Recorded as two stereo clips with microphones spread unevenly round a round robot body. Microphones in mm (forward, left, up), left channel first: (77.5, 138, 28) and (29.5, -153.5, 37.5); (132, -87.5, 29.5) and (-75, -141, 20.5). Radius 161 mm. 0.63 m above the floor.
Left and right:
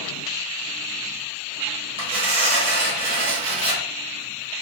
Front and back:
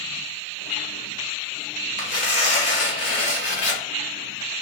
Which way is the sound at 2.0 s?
25° right.